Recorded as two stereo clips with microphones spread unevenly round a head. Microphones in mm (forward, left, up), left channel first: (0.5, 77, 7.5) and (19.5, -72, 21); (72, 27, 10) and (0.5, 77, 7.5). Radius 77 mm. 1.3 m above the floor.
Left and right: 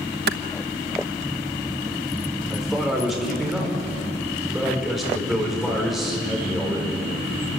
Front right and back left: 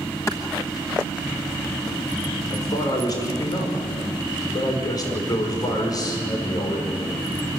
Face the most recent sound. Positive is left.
turn(degrees=5)